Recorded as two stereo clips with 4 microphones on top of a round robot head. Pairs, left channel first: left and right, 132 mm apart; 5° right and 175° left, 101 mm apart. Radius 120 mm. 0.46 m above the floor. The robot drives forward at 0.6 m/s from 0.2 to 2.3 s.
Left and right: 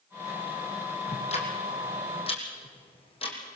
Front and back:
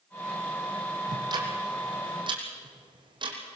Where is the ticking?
125° left, 3.5 m; by 3.4 s 135° left, 4 m.